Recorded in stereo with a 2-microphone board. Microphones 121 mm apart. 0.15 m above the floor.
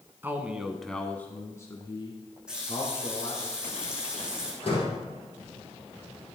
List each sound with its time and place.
0.2 s a man speaking: 15° right (ahead or behind), 1.5 m; by 3.5 s 45° left (ahead or behind), 3 m
2.5 s a running tap: 5° right (ahead or behind), 5 m
4.6 s a door slam: 50° left (ahead or behind), 4.5 m